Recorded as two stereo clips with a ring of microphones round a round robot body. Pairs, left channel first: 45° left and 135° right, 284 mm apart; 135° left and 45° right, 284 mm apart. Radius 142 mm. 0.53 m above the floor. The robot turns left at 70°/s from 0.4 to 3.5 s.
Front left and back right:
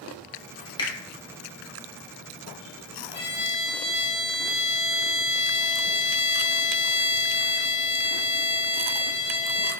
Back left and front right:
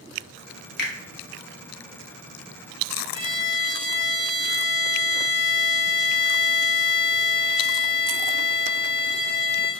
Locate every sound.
0.8 s a finger snap: 110° left, 0.6 m; by 0.9 s 100° left, 0.6 m
3.1 s a violin: 25° left, 1.9 m; by 9.7 s straight ahead, 1.9 m